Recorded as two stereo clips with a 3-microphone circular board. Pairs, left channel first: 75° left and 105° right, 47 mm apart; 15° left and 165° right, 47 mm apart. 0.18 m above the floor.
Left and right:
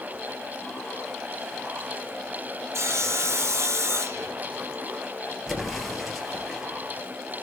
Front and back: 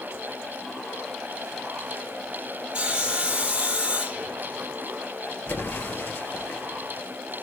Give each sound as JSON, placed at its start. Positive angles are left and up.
{"t": 2.7, "sound": "sawing", "azimuth_deg": -95, "distance_m": 1.2}
{"t": 5.5, "sound": "an explosion", "azimuth_deg": -15, "distance_m": 2.0}